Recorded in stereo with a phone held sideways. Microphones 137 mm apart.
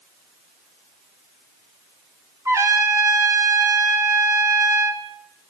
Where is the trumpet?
20° right (ahead or behind), 2.5 m.